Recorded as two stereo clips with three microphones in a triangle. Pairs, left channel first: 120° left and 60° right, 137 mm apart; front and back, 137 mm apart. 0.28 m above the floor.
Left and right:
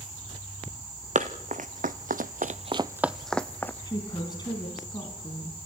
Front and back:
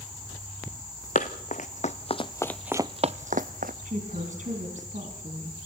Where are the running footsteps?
25° right, 1.6 m; by 3.7 s 165° right, 1.2 m.